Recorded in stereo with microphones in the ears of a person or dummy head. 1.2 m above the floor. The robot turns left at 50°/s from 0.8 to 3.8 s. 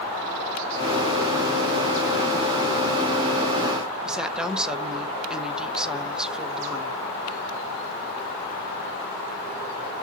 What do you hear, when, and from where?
4.0 s a woman speaking: 5° right (ahead or behind), 0.6 m